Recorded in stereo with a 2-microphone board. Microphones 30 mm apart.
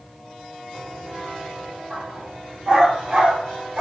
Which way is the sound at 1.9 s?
55° right (ahead or behind).